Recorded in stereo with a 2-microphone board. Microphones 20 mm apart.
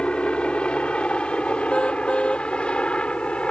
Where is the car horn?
85° left.